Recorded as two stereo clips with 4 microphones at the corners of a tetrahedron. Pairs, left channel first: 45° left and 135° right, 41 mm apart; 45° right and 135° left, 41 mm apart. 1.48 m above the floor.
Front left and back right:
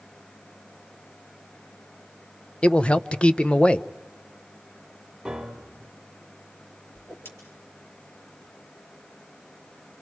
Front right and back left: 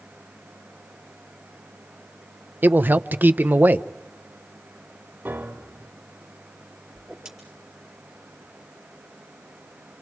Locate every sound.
2.6 s a man speaking: 105° left, 0.6 m
5.2 s a piano: 145° left, 1.9 m
7.0 s a whoosh: 60° left, 4.5 m